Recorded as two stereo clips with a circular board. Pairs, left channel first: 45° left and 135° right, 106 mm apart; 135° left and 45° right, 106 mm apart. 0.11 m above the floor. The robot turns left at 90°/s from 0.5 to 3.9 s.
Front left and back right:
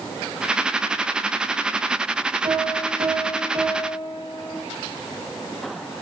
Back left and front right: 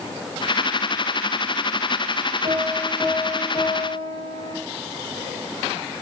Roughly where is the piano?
Right.